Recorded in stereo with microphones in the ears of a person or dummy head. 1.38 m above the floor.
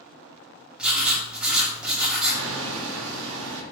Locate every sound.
0.8 s writing: 5° right (ahead or behind), 0.9 m
2.3 s hammering: 80° right, 0.8 m